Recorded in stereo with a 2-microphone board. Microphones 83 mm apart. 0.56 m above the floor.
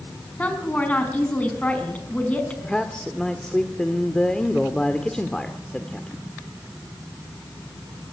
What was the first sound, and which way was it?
A woman speaking, 20° left (ahead or behind).